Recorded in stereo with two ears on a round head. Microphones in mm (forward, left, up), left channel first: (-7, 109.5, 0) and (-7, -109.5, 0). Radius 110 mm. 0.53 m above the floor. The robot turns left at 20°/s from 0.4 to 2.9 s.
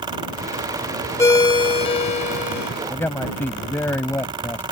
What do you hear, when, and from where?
1.2 s a ringtone: 165° left; by 2.7 s 135° left
2.9 s a man speaking: 10° left (ahead or behind)